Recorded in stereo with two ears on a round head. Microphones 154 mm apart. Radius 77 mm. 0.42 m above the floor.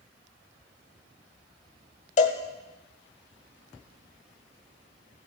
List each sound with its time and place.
2.2 s a cowbell: 40° left (ahead or behind), 1.3 m